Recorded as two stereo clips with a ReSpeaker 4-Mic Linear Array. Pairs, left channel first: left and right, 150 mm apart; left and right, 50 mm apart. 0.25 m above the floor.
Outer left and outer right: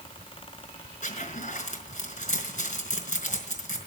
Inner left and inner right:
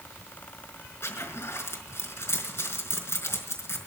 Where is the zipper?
55° left (ahead or behind), 3.5 m.